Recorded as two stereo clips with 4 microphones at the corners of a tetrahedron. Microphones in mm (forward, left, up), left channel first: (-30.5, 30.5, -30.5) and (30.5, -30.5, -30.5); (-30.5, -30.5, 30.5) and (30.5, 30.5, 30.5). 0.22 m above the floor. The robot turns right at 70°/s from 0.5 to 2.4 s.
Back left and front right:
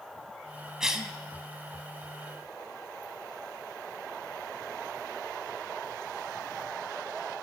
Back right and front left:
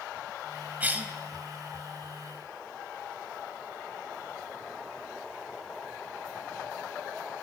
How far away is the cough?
About 1.0 m.